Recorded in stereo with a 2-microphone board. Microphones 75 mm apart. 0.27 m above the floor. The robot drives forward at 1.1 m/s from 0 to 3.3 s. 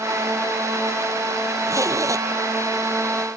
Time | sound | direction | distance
1.7 | a zipper | 45° right (ahead or behind) | ?